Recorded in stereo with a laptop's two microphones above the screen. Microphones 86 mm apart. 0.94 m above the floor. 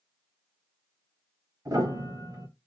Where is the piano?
45° right (ahead or behind), 1.2 m.